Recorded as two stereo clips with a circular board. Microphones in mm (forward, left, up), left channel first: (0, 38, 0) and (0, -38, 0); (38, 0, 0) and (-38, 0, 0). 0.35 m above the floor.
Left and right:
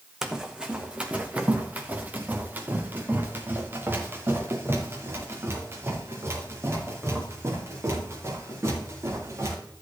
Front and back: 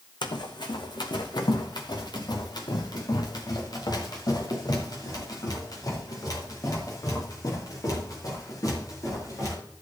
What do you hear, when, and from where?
0.2 s running footsteps: 5° right, 1.4 m; by 9.6 s 40° right, 6 m